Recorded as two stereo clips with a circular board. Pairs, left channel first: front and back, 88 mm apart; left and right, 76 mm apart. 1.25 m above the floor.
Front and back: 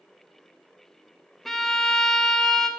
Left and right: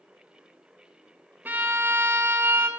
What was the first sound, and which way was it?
A violin, 85° right.